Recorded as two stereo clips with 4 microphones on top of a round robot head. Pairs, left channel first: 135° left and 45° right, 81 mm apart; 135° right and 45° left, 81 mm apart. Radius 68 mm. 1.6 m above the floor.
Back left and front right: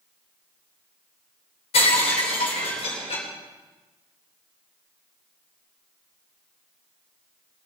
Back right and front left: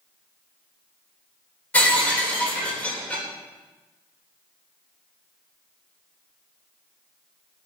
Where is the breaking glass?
145° left, 3.5 m.